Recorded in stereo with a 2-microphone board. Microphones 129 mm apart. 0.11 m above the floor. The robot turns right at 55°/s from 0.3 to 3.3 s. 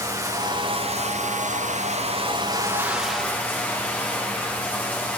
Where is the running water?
150° right, 8 m; by 5.2 s 15° left, 8 m.